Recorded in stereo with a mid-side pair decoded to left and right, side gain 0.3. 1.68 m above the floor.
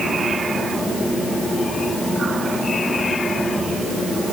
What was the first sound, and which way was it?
Only background noise.